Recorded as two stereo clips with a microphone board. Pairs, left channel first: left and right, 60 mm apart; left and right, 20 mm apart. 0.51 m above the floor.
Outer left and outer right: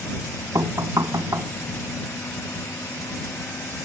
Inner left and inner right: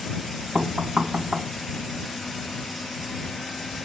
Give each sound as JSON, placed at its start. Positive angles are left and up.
{"t": 0.6, "sound": "knocking", "side_deg": -65}